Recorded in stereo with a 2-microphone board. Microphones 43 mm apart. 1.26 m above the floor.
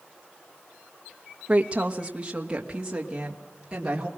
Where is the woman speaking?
35° right (ahead or behind), 1.1 m; by 4.1 s 20° right (ahead or behind), 3 m.